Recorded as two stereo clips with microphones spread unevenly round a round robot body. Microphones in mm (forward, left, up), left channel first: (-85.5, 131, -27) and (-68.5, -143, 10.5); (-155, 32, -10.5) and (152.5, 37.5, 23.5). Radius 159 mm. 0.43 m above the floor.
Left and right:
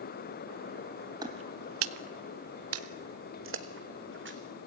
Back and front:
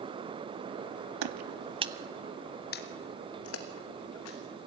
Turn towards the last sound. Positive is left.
turn(degrees=-135)